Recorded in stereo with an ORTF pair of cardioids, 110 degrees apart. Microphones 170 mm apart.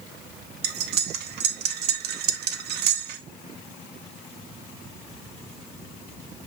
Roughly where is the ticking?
I don't hear ticking.